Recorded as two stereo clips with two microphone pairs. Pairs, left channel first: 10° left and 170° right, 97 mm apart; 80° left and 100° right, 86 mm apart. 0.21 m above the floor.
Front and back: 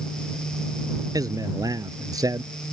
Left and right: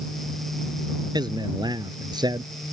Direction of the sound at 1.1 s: 125° right.